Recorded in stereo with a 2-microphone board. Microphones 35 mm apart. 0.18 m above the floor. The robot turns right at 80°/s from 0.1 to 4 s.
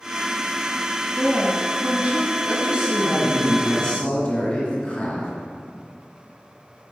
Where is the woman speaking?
165° right, 1.5 m; by 2.4 s 70° right, 1.5 m.